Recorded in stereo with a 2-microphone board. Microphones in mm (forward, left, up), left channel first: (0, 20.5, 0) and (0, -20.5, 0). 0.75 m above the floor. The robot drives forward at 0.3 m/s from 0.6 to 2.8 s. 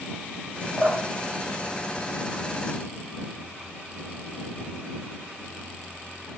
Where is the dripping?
15° right (ahead or behind), 1.0 m; by 2.7 s 10° right (ahead or behind), 1.6 m.